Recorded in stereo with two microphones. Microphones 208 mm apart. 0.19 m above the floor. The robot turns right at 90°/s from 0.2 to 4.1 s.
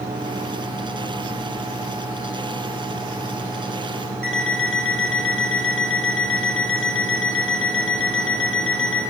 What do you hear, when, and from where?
4.2 s an alarm clock: 70° left (ahead or behind), 2.5 m